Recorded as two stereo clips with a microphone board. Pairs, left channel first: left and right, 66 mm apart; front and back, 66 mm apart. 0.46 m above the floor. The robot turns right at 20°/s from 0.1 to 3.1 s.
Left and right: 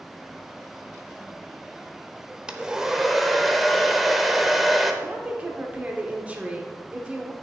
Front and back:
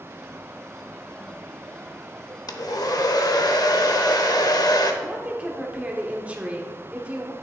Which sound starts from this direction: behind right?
A woman speaking, at 5.0 s.